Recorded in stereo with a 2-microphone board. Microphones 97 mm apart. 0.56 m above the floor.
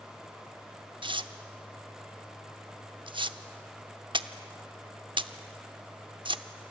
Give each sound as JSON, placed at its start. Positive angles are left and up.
{"t": 1.0, "sound": "tearing paper", "side_deg": -55, "distance_m": 0.8}